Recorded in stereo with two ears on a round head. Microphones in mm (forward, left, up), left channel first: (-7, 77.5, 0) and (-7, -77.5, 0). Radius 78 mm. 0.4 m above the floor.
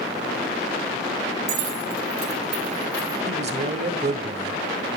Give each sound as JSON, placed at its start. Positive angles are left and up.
{"t": 1.5, "sound": "keys jangling", "side_deg": -65, "distance_m": 2.5}
{"t": 3.3, "sound": "a man speaking", "side_deg": -45, "distance_m": 1.5}